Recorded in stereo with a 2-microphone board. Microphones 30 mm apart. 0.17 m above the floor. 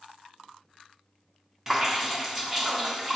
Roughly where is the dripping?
Centre.